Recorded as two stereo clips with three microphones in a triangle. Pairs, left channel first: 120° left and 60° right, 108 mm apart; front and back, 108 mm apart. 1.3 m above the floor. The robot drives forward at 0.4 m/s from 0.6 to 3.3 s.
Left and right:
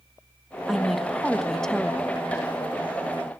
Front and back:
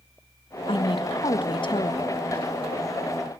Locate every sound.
0.7 s a woman speaking: 30° left, 1.8 m; by 2.1 s 40° left, 1.3 m